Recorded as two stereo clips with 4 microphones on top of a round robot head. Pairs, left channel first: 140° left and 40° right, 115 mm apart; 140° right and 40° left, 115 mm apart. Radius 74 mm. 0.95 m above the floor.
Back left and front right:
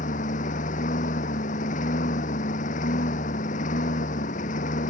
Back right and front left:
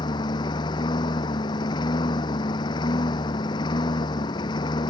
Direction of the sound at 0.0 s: 165° left.